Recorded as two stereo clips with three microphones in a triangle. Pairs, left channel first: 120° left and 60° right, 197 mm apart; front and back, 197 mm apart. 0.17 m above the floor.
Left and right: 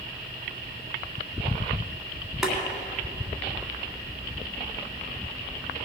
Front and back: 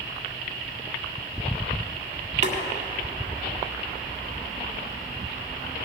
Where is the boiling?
145° right, 1.9 m.